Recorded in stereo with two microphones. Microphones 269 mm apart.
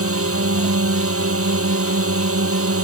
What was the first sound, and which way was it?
A drone, 55° right (ahead or behind).